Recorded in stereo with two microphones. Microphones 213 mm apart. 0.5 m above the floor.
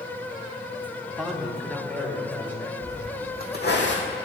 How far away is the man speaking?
About 1.3 m.